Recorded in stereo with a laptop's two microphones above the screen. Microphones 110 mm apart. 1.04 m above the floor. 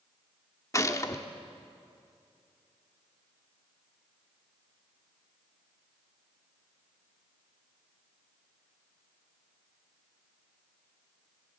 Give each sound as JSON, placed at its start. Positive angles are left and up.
{"t": 0.7, "sound": "a gunshot", "side_deg": 30, "distance_m": 1.3}